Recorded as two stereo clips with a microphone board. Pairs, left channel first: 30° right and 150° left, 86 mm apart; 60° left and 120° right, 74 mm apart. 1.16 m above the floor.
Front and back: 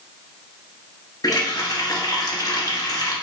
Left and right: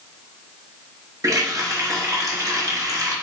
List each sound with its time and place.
1.2 s a running tap: 75° right, 1.2 m